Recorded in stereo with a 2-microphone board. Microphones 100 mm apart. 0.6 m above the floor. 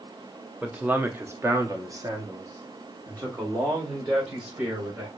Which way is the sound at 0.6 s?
10° right (ahead or behind).